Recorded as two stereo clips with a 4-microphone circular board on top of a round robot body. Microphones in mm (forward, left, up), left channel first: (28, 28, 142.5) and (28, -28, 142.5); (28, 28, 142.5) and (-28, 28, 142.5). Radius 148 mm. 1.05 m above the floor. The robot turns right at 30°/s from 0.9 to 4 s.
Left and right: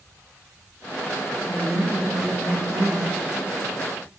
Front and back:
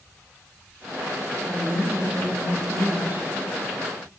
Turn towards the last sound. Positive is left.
turn(degrees=-110)